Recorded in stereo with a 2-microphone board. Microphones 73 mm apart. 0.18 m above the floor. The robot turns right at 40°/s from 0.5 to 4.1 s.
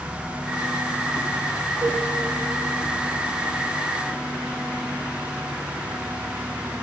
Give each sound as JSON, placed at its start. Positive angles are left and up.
{"t": 1.8, "sound": "a cowbell", "side_deg": -70, "distance_m": 3.5}